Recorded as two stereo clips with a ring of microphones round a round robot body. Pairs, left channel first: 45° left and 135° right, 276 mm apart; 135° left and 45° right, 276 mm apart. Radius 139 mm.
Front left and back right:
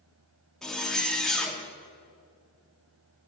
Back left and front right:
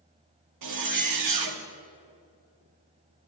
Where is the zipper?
45° right, 1.3 m.